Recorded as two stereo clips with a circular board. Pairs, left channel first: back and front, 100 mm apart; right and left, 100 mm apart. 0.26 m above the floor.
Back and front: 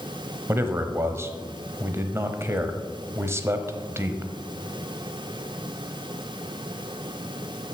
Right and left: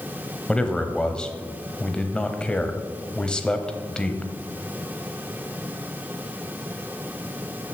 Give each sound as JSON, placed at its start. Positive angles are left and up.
{"t": 0.5, "sound": "a man speaking", "azimuth_deg": -20, "distance_m": 1.0}